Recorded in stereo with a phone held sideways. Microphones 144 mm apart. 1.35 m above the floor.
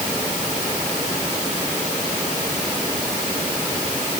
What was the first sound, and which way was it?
Only background noise.